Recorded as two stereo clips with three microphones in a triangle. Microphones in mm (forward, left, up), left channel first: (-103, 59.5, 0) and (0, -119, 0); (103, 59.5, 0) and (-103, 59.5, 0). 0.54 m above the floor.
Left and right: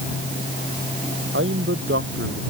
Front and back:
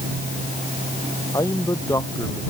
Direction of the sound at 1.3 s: 70° right.